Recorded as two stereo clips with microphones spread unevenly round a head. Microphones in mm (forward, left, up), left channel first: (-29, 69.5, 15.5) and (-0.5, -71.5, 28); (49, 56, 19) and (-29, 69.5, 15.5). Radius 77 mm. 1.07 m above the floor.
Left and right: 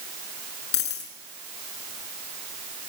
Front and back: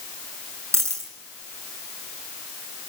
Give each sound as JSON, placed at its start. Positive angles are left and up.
{"t": 0.7, "sound": "a dropped coin", "azimuth_deg": 115, "distance_m": 6.0}